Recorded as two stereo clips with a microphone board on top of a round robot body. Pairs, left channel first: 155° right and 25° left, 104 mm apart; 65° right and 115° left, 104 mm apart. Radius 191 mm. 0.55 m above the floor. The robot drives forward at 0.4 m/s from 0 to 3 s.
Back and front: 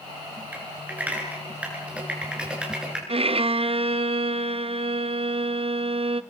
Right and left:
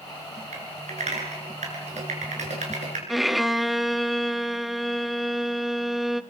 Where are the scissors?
I don't hear scissors.